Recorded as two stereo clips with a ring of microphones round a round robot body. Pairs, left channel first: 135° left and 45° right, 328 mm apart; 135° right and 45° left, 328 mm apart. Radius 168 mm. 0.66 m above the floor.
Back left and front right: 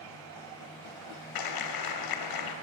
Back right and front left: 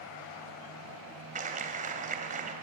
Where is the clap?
115° left, 3 m.